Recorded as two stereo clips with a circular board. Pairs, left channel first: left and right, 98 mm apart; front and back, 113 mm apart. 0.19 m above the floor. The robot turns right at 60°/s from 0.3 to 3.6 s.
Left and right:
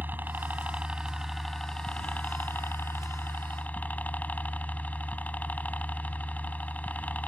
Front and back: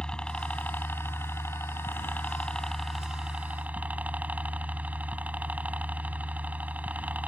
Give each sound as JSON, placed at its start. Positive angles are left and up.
{"t": 0.0, "sound": "a helicopter", "azimuth_deg": -70}